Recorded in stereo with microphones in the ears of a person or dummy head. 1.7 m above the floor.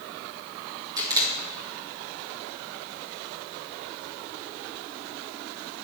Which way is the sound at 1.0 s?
25° right (ahead or behind).